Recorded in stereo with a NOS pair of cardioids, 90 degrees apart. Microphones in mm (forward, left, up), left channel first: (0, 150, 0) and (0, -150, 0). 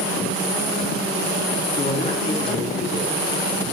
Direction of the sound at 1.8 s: 35° left.